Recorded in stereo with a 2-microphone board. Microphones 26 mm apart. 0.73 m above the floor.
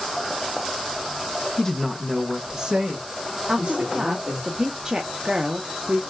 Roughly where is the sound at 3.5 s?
Right.